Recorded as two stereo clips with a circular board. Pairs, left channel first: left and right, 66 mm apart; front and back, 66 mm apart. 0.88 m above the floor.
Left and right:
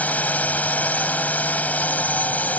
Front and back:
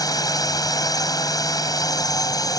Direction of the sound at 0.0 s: 25° left.